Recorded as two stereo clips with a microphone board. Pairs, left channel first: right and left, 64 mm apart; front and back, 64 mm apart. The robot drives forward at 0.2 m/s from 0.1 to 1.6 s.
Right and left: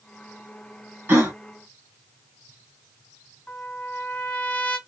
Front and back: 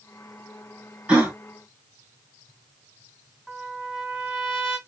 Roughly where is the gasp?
Behind left.